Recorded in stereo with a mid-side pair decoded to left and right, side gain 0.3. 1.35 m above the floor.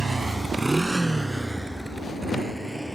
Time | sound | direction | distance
0.0 | a motorcycle | 40° right | ?